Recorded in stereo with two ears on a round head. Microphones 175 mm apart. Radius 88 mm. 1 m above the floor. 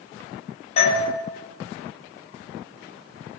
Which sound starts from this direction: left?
A doorbell, at 0.8 s.